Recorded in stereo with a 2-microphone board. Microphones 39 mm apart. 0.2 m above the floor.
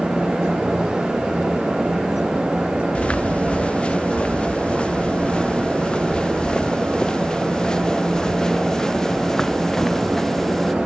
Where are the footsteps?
30° left (ahead or behind); by 10.8 s 10° left (ahead or behind).